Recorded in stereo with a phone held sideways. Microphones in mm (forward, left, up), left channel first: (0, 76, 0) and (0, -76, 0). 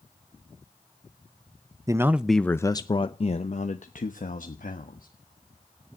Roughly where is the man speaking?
Right.